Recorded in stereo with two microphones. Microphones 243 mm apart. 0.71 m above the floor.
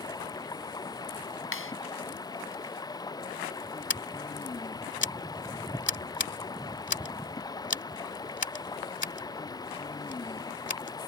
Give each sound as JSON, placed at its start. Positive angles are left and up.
{"t": 0.0, "sound": "running water", "side_deg": 15}
{"t": 1.5, "sound": "a clap", "side_deg": 65}
{"t": 3.9, "sound": "scissors", "side_deg": 50}